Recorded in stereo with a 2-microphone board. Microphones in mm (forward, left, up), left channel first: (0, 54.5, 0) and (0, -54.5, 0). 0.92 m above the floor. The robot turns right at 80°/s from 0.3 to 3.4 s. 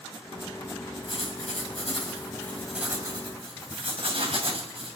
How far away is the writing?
About 3 m.